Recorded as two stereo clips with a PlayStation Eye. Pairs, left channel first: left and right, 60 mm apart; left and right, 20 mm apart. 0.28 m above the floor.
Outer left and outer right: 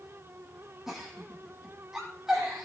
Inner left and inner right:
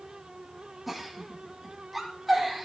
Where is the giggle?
5° right (ahead or behind), 6 m.